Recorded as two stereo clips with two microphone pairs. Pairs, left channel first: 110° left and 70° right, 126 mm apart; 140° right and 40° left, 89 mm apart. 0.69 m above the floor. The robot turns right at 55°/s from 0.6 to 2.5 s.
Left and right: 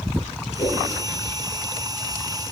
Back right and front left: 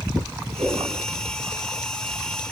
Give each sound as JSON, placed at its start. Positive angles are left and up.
{"t": 0.6, "sound": "a whoosh", "azimuth_deg": 45, "distance_m": 6.5}